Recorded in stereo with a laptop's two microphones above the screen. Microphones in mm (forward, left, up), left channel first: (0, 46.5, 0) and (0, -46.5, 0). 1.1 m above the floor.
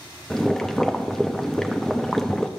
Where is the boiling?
5° left (ahead or behind), 0.5 m.